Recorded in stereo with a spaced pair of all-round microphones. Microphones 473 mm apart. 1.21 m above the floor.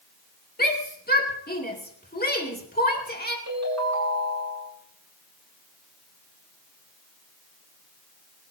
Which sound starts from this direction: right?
A ringtone, at 3.5 s.